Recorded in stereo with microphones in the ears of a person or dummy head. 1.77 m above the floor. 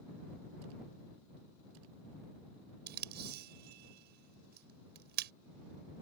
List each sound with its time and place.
2.9 s tape being pulled: 55° right (ahead or behind)